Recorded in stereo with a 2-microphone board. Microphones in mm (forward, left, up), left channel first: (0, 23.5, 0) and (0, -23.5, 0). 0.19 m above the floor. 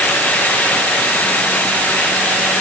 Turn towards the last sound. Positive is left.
No sound to turn to.